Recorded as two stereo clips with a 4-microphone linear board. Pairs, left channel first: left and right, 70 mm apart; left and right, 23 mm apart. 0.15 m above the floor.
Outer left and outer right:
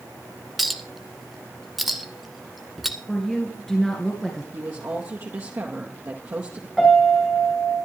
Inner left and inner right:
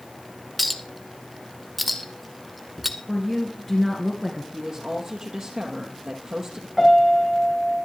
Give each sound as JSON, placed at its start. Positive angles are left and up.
{"t": 0.6, "sound": "a clink", "side_deg": 0, "distance_m": 1.1}
{"t": 3.1, "sound": "a woman speaking", "side_deg": 5, "distance_m": 2.5}
{"t": 4.5, "sound": "a woman speaking", "side_deg": -45, "distance_m": 2.5}
{"t": 6.8, "sound": "a piano", "side_deg": 0, "distance_m": 5.0}